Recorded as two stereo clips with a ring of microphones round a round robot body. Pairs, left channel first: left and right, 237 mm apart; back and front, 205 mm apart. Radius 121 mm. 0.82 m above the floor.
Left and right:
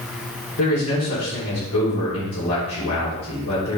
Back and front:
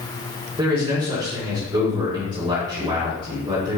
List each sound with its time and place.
0.6 s a man speaking: 65° left, 3 m